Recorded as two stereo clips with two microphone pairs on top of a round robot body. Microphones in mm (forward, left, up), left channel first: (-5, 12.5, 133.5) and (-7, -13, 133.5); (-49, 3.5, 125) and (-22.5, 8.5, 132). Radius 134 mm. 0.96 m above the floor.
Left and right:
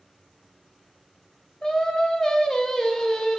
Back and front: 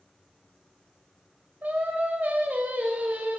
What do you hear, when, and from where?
1.6 s singing: 25° left, 1.7 m